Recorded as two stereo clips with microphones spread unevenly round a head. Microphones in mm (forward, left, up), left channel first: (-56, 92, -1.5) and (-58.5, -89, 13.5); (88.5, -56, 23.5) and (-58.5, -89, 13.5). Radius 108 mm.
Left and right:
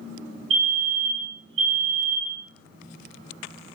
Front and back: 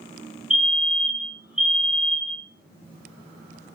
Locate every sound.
0.5 s a fire alarm: 85° right, 4 m